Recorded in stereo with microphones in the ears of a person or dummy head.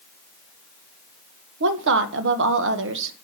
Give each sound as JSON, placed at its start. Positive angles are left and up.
{"t": 1.6, "sound": "a woman speaking", "side_deg": -65, "distance_m": 1.5}